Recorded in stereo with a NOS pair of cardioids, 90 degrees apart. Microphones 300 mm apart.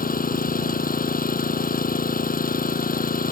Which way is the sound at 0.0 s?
30° left.